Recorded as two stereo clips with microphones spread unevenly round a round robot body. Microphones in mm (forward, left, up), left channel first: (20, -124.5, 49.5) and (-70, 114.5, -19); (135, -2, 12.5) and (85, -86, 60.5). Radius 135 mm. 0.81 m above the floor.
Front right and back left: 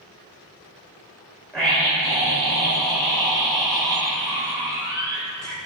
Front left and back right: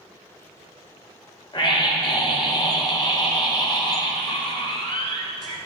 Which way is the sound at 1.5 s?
20° left.